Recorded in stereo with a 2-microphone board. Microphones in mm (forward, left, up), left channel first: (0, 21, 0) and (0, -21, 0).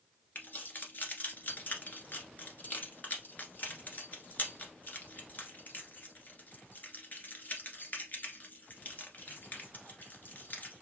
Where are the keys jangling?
45° left (ahead or behind), 1.4 m.